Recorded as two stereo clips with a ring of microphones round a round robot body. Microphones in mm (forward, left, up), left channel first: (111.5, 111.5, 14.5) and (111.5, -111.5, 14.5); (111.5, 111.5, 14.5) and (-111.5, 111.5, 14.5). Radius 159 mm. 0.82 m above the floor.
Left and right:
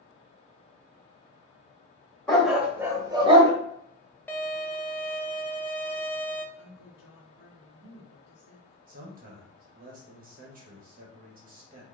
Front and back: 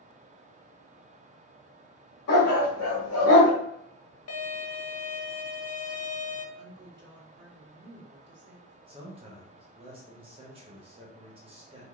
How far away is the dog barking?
About 1.4 m.